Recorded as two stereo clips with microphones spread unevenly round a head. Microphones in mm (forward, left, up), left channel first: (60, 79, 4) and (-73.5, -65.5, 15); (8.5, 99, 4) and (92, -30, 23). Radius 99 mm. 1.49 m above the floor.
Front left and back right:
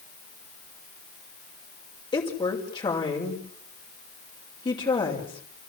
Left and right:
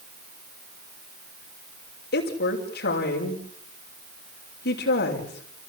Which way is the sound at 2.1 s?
115° left.